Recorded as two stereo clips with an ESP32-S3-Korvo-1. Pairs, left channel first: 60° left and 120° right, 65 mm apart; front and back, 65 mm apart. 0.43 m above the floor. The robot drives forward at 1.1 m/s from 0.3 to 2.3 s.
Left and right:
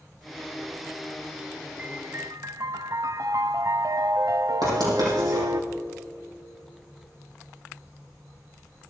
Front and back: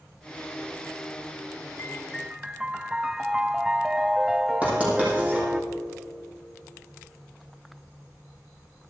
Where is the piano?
45° right, 0.7 m; by 5.6 s 100° right, 0.5 m.